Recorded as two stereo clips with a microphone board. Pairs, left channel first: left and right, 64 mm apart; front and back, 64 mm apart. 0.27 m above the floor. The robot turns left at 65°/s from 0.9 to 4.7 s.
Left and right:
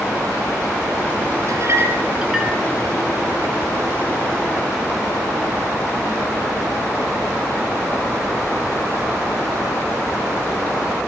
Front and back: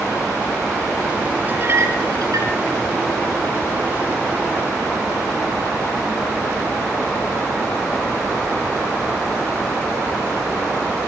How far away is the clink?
About 3.5 m.